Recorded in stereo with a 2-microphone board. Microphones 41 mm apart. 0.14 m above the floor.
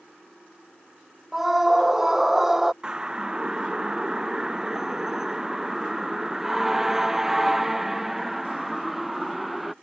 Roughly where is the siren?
Centre.